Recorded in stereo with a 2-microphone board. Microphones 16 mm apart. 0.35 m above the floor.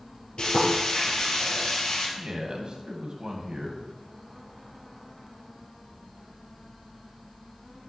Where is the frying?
85° left, 4.5 m.